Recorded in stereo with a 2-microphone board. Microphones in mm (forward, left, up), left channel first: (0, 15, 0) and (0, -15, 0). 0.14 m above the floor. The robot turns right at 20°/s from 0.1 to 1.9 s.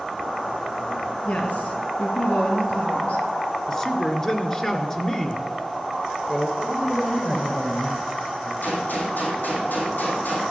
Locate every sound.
1.2 s a woman speaking: 50° left (ahead or behind), 3 m; by 3.2 s 55° left (ahead or behind), 3 m
3.7 s a woman speaking: 20° left (ahead or behind), 2 m
6.6 s a man speaking: 45° left (ahead or behind), 6.5 m
8.6 s a gunshot: 80° left, 3.5 m